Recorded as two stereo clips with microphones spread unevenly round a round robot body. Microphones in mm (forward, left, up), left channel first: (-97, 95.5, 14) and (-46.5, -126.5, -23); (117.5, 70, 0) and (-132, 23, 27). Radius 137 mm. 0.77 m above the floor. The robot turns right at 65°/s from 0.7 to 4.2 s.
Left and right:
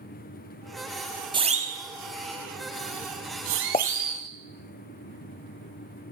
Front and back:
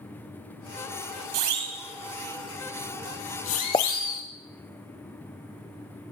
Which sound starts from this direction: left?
A pop, at 3.7 s.